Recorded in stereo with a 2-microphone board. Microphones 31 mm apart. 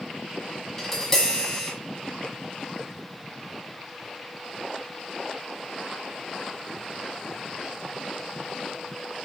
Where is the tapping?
10° left (ahead or behind), 1.6 m.